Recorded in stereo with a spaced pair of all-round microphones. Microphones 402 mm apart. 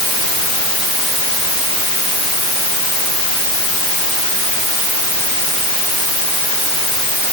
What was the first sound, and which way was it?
Only background noise.